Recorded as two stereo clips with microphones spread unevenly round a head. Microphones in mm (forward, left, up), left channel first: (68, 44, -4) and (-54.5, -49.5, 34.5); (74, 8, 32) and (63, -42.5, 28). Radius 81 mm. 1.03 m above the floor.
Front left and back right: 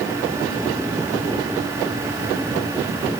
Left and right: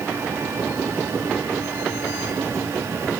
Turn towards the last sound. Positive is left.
No sound to turn to.